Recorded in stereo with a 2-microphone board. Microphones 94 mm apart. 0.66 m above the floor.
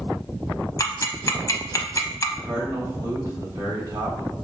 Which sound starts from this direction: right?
A man speaking, at 2.4 s.